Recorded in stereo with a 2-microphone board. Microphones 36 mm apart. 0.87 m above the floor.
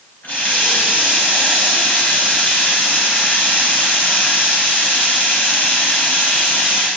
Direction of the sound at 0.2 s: 80° left.